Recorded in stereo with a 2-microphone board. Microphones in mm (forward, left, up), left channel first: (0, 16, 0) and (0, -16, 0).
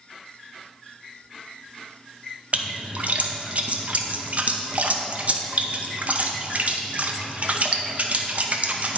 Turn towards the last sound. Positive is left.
turn(degrees=-55)  # may be behind; listen again after turning